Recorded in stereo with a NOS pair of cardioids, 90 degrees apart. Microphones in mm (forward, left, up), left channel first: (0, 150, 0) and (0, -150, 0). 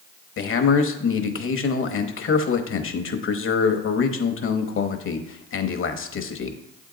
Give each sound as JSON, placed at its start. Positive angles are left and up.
{"t": 0.4, "sound": "a man speaking", "azimuth_deg": 45, "distance_m": 1.0}